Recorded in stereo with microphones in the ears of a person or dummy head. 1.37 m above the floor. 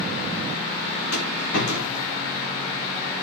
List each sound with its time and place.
1.1 s a rattle: 65° left (ahead or behind), 3 m